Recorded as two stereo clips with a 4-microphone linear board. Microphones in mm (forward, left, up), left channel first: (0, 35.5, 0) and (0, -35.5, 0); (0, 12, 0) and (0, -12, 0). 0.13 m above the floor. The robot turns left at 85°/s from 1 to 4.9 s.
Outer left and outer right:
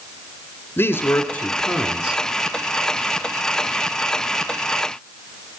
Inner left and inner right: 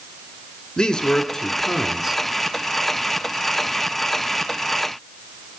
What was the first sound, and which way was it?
A man speaking, 70° left.